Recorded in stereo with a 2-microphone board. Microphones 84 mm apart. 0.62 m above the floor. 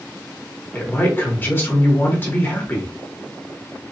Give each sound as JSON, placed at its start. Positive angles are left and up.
{"t": 0.7, "sound": "a man speaking", "side_deg": 25, "distance_m": 1.1}